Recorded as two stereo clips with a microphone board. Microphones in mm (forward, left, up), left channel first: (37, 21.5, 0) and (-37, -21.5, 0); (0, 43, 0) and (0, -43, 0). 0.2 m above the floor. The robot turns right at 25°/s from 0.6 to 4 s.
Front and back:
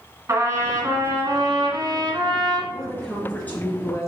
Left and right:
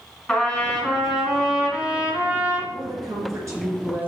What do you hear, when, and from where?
0.3 s a trumpet: 175° left, 2.5 m; by 2.6 s 135° right, 2.5 m
2.7 s a woman speaking: 55° right, 2.5 m; by 4.1 s 25° right, 2.5 m